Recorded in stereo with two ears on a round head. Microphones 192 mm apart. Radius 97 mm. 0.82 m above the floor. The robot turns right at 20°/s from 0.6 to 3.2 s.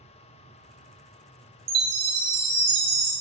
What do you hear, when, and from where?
1.7 s a chime: 45° right (ahead or behind), 0.6 m; by 3.1 s 50° right (ahead or behind), 0.6 m